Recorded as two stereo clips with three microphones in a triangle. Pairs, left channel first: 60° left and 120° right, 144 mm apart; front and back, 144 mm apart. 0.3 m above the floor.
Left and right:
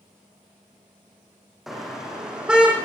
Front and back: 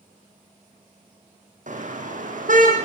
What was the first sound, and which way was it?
A car horn, 150° left.